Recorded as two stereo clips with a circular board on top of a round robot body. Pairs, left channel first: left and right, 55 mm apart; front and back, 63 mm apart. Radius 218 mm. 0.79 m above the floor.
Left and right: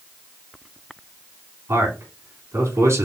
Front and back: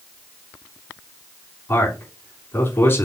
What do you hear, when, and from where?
1.7 s a man speaking: 50° right, 3.5 m